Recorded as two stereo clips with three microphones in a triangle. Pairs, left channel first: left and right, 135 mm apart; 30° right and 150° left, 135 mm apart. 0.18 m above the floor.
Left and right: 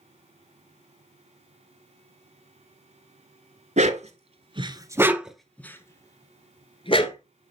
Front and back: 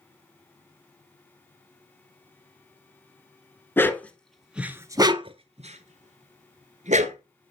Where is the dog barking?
100° right, 1.0 m; by 7.2 s 130° left, 1.4 m.